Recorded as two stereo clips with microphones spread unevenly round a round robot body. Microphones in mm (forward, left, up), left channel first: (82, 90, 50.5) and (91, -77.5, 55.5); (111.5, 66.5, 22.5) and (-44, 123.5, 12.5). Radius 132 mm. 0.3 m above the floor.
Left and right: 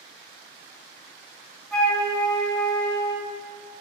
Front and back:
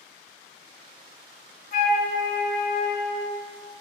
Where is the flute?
10° left, 3 m.